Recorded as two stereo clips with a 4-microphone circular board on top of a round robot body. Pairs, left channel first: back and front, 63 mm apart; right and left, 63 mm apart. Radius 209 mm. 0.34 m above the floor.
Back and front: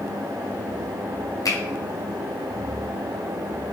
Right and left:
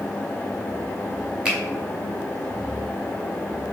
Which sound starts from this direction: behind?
A finger snap, at 1.4 s.